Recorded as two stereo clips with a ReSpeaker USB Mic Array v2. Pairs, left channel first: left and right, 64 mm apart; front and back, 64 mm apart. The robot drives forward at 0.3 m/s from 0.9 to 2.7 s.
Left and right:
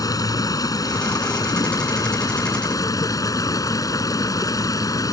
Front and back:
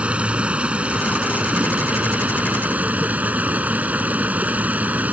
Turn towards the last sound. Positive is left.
turn(degrees=115)